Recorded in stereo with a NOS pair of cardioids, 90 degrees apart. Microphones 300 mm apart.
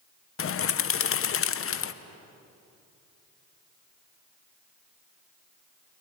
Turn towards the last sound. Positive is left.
turn(degrees=45)